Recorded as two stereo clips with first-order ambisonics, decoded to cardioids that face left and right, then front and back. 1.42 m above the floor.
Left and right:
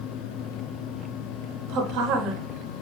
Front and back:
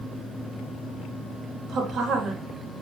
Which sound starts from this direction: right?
A woman speaking, at 1.7 s.